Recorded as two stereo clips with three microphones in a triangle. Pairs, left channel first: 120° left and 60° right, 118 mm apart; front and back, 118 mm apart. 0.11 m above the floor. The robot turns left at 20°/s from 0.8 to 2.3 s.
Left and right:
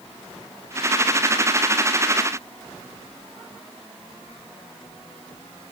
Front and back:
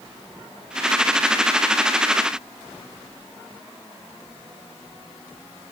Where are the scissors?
I don't hear scissors.